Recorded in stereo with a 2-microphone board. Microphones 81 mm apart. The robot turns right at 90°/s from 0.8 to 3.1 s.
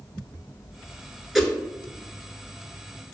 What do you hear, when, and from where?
1.4 s a whoosh: 5° right (ahead or behind), 0.6 m; by 1.5 s 15° left (ahead or behind), 0.6 m